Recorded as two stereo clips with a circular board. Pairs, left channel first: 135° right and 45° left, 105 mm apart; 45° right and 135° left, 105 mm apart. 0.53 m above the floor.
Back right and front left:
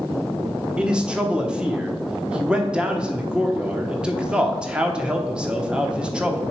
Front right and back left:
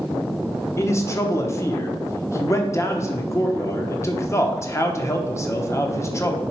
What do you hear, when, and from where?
0.8 s a man speaking: 25° right, 0.9 m